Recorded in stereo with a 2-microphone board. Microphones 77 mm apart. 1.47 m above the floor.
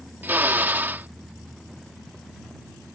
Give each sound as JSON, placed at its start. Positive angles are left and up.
{"t": 0.2, "sound": "a drill", "side_deg": -25}